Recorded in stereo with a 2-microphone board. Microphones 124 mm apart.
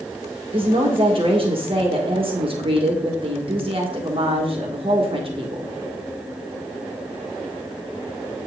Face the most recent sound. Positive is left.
turn(degrees=-45)  # may be behind; listen again after turning